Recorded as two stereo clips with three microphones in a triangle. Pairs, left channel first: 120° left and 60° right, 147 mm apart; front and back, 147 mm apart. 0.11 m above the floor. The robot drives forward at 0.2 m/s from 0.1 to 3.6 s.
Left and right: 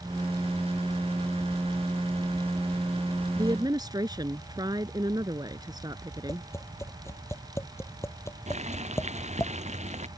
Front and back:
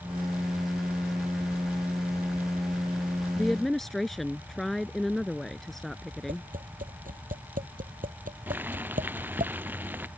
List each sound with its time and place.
3.4 s a woman speaking: 80° right; by 6.5 s 85° right
6.3 s tapping: 170° right
8.5 s boiling: 100° right